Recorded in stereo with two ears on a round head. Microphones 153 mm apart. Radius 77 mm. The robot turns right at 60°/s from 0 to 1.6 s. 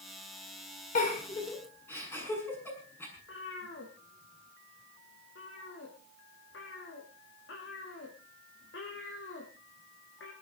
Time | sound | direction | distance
0.9 | a giggle | 55° left (ahead or behind) | 7.5 m
3.2 | a cat meowing | 80° left | 5 m